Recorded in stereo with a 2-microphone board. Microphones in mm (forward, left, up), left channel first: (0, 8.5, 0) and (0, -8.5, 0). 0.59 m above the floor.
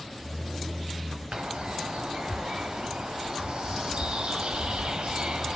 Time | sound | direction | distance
1.3 | a bird | 85° right | 1.1 m